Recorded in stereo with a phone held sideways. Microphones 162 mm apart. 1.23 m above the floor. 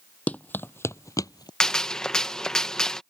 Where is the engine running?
No engine running in this recording.